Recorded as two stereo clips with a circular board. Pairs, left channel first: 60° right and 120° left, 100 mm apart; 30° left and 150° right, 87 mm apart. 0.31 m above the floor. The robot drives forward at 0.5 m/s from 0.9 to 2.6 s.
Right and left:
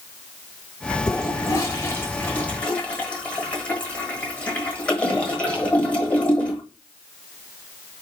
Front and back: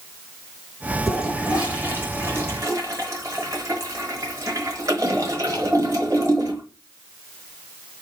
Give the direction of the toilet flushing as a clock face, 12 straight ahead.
2 o'clock.